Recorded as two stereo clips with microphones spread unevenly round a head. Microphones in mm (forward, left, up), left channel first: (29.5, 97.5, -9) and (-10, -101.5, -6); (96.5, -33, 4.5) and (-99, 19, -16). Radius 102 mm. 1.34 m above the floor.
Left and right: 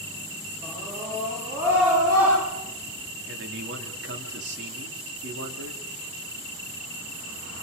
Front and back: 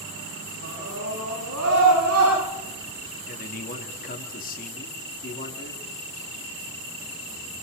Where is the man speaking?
65° right, 3.5 m.